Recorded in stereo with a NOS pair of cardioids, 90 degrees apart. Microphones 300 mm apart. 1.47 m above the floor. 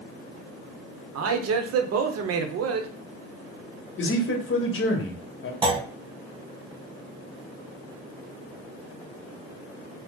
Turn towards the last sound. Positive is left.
turn(degrees=-15)